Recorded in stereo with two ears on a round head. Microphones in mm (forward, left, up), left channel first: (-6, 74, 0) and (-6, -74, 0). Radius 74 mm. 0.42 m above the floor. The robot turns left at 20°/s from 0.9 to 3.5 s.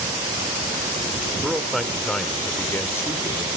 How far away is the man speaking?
About 1.2 m.